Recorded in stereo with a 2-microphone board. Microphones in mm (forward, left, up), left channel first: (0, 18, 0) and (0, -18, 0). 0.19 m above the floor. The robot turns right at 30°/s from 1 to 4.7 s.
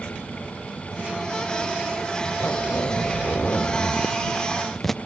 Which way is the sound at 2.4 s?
105° left.